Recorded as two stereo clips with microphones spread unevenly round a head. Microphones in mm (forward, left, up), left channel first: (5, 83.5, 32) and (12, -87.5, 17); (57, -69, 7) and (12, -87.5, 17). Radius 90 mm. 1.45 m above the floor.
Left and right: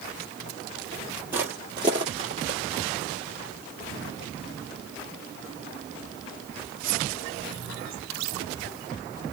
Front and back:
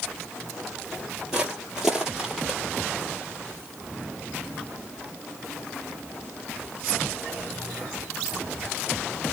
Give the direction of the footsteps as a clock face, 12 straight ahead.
5 o'clock.